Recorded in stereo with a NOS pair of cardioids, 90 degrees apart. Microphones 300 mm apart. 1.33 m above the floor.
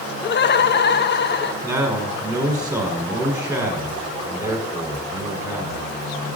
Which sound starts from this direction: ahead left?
Laughter, at 0.2 s.